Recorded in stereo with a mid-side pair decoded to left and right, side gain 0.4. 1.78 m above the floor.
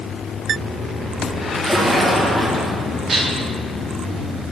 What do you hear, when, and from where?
1.6 s a splash: 15° right, 2 m
3.1 s dishes clattering: 50° right, 2.5 m